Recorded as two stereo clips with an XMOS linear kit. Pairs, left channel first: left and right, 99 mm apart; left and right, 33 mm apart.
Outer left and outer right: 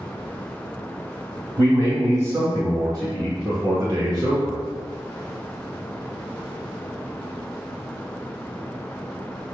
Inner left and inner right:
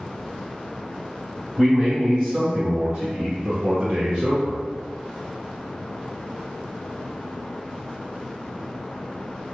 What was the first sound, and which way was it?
A man speaking, 30° right (ahead or behind).